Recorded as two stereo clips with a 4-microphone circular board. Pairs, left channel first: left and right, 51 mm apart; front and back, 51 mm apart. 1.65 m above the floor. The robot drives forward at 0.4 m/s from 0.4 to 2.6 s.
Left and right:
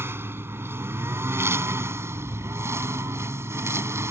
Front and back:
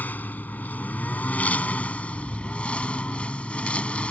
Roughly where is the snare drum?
No snare drum in this recording.